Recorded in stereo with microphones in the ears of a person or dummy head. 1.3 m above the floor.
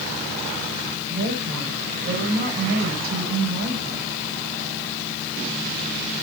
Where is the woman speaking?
55° right (ahead or behind), 5 m.